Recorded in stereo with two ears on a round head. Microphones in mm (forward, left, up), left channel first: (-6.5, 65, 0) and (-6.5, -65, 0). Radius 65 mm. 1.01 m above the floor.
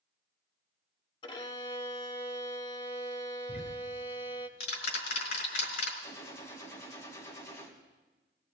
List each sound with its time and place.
1.2 s a violin: 35° left (ahead or behind), 0.8 m
3.5 s ticking: 85° left, 3.5 m
6.0 s a gunshot: 20° left (ahead or behind), 2.5 m